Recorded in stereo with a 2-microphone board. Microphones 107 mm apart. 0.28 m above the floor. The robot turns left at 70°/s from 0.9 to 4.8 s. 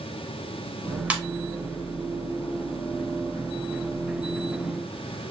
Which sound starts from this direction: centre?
A ringtone, at 1.1 s.